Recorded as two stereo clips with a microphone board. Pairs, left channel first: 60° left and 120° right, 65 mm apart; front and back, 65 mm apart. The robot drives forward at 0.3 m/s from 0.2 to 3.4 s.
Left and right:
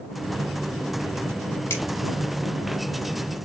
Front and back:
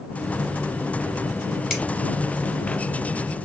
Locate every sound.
1.7 s a finger snap: 105° left, 2 m